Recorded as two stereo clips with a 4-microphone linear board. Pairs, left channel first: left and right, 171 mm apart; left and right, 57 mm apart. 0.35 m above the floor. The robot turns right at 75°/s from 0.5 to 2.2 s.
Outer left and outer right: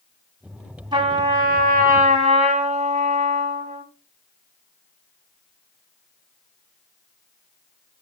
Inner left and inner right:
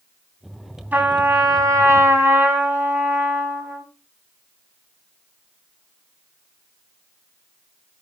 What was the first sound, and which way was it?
A trumpet, 150° right.